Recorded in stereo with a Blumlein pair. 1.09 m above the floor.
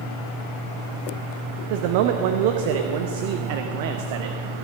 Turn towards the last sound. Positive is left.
turn(degrees=-50)